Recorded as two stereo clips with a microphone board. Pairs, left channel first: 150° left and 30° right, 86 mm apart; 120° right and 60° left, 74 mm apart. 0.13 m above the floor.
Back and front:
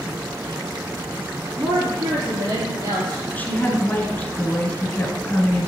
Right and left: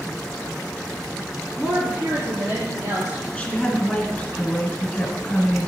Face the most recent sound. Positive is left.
turn(degrees=-170)